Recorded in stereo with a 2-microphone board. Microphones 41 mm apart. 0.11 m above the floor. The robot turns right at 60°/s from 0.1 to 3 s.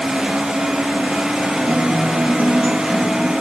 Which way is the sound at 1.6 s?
95° left.